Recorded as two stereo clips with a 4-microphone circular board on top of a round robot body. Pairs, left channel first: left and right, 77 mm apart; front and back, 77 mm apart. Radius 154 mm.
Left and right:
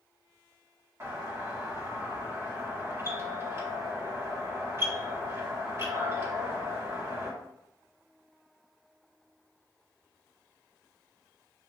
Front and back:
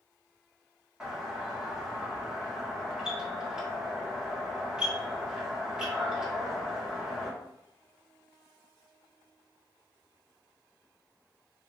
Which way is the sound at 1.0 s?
105° right.